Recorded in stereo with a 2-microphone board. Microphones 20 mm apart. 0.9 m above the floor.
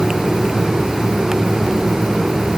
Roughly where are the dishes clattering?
I don't hear dishes clattering.